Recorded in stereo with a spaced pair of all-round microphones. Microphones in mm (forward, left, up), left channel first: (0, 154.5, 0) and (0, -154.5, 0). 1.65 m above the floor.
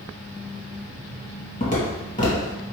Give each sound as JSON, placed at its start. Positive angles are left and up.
{"t": 1.6, "sound": "footsteps", "side_deg": 25, "distance_m": 1.9}